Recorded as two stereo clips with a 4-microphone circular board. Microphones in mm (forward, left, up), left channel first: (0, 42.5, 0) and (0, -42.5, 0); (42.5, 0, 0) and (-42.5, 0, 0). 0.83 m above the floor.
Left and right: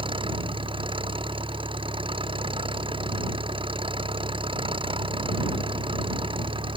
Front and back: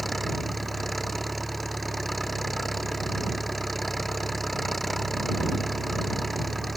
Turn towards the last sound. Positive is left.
turn(degrees=-90)